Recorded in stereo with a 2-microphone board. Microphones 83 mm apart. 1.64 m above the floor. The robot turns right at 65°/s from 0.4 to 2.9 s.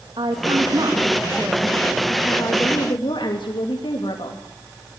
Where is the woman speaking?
90° right, 3 m; by 4.4 s 75° left, 3 m.